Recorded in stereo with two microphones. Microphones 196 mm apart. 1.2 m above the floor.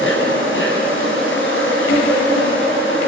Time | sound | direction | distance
0.0 | an insect | 85° left | 7.5 m